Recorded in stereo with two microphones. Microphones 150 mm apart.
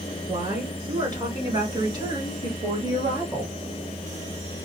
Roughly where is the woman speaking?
Right.